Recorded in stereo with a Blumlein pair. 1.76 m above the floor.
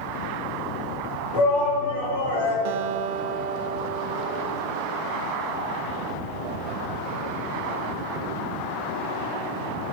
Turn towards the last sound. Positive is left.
turn(degrees=-50)